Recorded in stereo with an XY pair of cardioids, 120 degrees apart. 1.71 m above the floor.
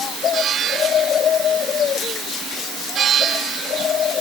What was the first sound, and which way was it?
Only background noise.